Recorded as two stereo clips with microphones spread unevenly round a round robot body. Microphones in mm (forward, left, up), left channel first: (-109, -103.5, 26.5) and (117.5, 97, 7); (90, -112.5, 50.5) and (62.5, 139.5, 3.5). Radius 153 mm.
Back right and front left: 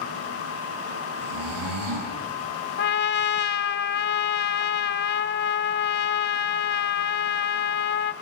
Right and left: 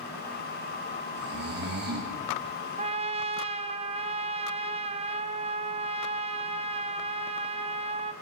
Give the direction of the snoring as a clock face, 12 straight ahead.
10 o'clock.